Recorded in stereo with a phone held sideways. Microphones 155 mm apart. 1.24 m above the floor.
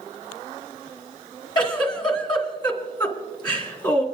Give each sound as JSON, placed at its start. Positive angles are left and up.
{"t": 1.6, "sound": "a giggle", "side_deg": 30, "distance_m": 2.5}